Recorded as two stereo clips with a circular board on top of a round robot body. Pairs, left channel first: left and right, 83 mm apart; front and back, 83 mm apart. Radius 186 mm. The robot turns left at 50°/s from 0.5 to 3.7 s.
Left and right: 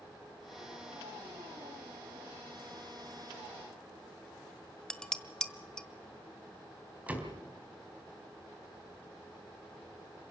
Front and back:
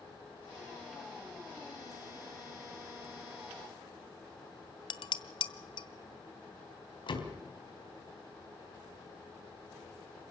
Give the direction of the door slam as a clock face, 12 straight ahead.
1 o'clock.